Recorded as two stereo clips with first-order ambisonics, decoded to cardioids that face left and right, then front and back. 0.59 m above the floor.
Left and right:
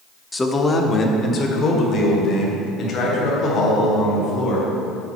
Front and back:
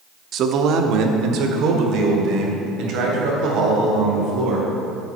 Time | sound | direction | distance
0.3 | a man speaking | 170° left | 0.7 m